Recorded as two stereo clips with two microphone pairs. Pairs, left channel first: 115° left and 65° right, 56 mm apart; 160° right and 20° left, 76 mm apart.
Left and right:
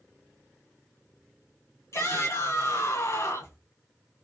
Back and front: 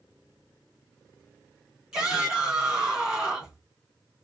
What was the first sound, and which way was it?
A shout, 105° left.